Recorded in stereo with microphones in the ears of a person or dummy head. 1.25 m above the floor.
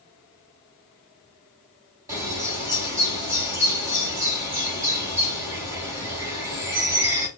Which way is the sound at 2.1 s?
15° right (ahead or behind).